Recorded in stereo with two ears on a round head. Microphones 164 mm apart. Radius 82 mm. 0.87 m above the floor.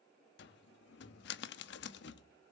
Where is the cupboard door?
60° left (ahead or behind), 1.1 m.